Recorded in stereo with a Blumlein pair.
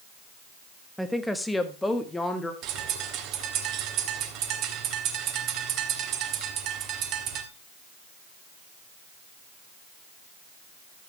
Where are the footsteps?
I don't hear footsteps.